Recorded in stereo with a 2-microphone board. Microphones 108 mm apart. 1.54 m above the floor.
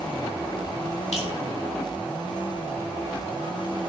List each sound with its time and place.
1.1 s dripping: 70° left (ahead or behind), 4 m